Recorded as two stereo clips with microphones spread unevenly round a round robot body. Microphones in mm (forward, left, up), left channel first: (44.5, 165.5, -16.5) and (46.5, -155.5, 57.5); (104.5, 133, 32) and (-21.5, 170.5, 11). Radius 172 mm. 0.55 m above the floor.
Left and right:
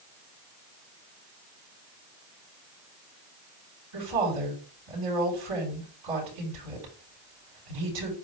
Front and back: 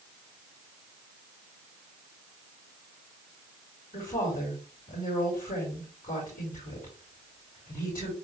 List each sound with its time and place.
3.9 s a woman speaking: 95° right, 6 m